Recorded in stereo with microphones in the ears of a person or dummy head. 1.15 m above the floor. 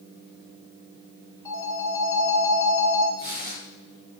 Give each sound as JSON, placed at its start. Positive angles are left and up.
{"t": 1.4, "sound": "a phone ringing", "side_deg": 20, "distance_m": 3.5}
{"t": 3.2, "sound": "tearing paper", "side_deg": -70, "distance_m": 5.0}